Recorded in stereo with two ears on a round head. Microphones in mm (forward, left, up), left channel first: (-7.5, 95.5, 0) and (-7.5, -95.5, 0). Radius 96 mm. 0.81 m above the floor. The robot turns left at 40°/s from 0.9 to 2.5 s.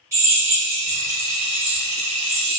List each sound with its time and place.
0.1 s a drill: 15° right, 1.6 m; by 2.6 s 80° right, 1.6 m